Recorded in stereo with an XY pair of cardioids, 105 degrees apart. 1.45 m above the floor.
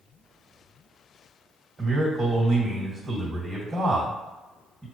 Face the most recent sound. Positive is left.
turn(degrees=-30)